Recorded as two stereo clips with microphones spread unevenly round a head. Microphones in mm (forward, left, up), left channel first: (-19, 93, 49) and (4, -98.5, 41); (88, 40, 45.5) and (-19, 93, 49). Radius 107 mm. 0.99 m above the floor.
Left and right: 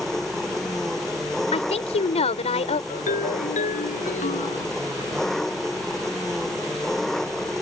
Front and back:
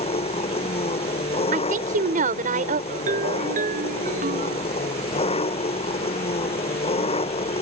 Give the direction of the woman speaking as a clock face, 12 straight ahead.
7 o'clock.